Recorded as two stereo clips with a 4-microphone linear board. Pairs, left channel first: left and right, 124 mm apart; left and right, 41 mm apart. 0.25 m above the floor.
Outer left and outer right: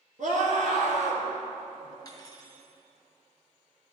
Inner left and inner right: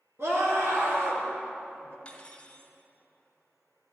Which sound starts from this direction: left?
Cutlery clinking, at 2.0 s.